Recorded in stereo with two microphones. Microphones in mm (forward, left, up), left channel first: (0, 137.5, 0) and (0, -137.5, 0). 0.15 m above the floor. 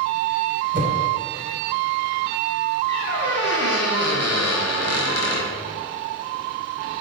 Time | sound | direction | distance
0.7 | a whoosh | 40° right (ahead or behind) | 0.7 m
2.9 | a squeak | 60° left (ahead or behind) | 0.9 m